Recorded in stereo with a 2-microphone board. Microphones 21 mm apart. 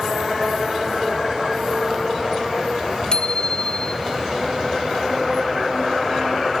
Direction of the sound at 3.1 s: 45° left (ahead or behind).